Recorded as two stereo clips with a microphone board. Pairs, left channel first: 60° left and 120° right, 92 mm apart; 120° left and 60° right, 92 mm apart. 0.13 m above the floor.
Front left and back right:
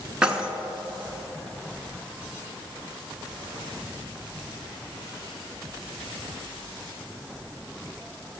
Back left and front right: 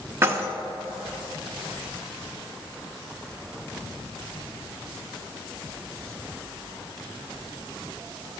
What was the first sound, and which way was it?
Keys jangling, 50° right.